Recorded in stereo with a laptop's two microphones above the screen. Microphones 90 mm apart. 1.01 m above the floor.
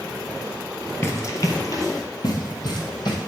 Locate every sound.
1.0 s running footsteps: 35° left (ahead or behind), 1.1 m; by 3.2 s 60° left (ahead or behind), 2 m